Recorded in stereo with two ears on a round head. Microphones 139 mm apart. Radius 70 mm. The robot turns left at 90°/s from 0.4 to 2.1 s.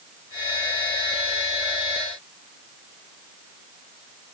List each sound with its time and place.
Only background noise.